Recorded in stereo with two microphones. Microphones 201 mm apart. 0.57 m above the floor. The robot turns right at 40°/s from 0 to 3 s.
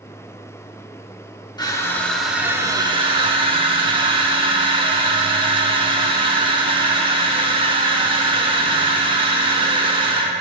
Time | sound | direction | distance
1.6 | crushing | 155° left | 0.7 m